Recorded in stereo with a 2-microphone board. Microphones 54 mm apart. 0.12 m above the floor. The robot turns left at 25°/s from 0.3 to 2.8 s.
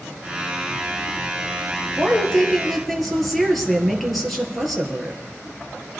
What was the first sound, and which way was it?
A woman speaking, 15° left (ahead or behind).